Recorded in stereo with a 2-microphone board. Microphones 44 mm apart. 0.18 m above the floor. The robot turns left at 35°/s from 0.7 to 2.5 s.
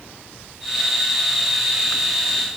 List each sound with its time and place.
Only background noise.